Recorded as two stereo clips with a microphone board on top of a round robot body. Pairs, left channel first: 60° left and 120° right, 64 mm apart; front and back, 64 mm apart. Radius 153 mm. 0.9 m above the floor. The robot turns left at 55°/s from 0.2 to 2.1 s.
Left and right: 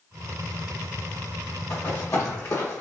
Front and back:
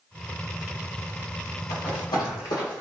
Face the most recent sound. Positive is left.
turn(degrees=5)